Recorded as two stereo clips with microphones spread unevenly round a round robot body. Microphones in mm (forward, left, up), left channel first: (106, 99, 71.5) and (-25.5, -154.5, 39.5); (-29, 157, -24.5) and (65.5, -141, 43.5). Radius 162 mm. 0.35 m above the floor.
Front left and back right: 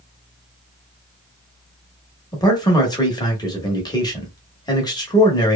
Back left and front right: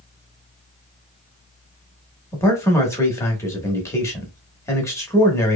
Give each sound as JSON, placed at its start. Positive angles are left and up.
{"t": 2.3, "sound": "a man speaking", "azimuth_deg": 135, "distance_m": 0.9}